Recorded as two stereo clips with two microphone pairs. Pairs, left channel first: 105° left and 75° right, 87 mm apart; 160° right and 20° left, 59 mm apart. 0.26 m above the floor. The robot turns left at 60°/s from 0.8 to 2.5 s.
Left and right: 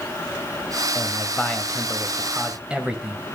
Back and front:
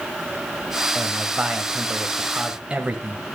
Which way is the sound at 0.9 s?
80° left.